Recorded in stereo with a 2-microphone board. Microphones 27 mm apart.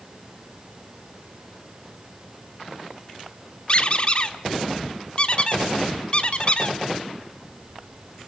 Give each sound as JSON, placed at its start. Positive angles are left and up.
{"t": 3.7, "sound": "a squeak", "side_deg": 40, "distance_m": 1.3}